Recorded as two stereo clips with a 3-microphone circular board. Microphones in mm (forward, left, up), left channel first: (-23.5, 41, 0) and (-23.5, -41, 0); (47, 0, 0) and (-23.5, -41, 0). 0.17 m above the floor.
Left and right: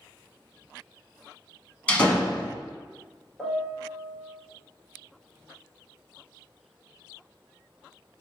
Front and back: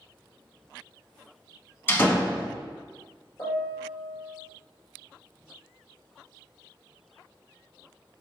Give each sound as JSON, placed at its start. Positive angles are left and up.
{"t": 1.9, "sound": "a door slam", "azimuth_deg": 35, "distance_m": 0.9}
{"t": 3.4, "sound": "a piano", "azimuth_deg": 0, "distance_m": 1.3}